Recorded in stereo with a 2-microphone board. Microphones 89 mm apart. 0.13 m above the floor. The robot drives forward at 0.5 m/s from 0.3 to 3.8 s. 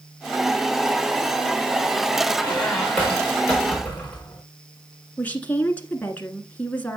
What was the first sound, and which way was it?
A squeak, 10° left (ahead or behind).